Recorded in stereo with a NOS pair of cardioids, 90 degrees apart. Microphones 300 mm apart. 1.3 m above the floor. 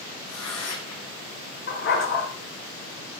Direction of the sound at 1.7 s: 45° left.